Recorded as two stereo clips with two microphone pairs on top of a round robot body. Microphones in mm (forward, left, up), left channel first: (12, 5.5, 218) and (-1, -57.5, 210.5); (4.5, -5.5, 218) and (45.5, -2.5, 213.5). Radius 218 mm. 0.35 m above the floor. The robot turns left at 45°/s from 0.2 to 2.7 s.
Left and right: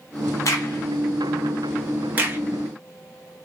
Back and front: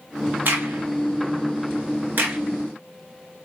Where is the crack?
40° left, 0.6 m; by 2.4 s 45° right, 0.6 m.